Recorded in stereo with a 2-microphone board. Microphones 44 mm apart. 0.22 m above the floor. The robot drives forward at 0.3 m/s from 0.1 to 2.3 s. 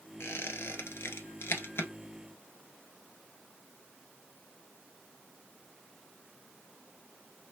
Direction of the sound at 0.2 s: 75° left (ahead or behind).